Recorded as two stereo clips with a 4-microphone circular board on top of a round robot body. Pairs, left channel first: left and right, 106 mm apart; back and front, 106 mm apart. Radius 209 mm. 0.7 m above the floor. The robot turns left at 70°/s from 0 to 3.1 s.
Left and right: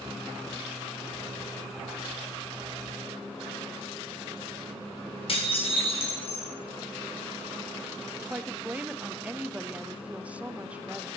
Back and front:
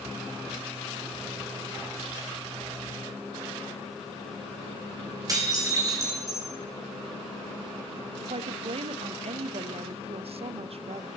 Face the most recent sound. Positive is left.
turn(degrees=-15)